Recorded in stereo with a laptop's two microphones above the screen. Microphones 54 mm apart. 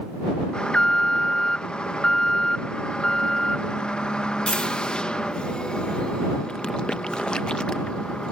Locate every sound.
0.5 s an alarm: 15° left (ahead or behind)